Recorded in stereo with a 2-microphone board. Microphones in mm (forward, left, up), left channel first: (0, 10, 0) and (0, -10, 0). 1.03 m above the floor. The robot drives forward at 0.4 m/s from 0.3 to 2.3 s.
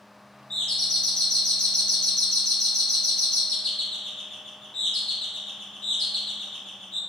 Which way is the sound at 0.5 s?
50° left (ahead or behind).